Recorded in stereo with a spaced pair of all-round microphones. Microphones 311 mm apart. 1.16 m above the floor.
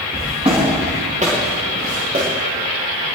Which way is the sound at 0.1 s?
15° right (ahead or behind).